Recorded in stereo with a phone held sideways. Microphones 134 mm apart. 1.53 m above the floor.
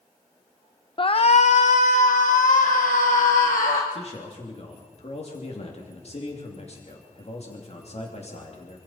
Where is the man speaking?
50° left (ahead or behind), 3 m.